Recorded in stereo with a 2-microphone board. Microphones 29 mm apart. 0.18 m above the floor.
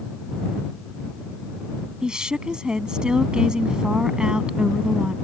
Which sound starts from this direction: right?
A woman speaking, at 2.0 s.